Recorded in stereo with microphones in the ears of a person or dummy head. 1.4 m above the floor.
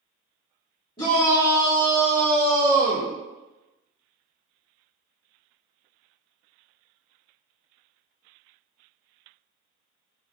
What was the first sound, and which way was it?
A shout, 30° left (ahead or behind).